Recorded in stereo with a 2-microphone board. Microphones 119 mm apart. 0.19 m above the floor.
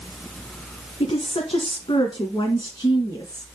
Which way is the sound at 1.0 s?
50° left (ahead or behind).